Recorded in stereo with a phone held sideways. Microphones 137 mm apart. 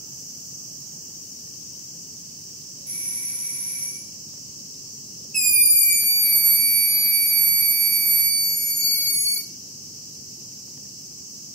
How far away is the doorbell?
About 1.2 m.